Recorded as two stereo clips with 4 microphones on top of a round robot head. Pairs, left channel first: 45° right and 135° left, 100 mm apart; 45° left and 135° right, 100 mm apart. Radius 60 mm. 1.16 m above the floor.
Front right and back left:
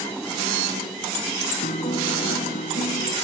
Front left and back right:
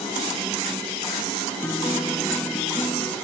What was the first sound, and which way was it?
A guitar, 30° right.